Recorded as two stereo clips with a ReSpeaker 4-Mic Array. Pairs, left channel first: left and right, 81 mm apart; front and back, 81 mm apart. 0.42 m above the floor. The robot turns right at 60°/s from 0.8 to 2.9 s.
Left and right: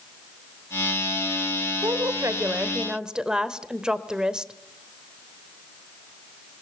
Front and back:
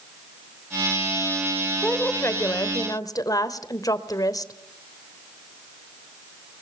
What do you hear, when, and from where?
1.8 s a woman speaking: 75° right, 1.5 m; by 4.5 s 10° right, 1.5 m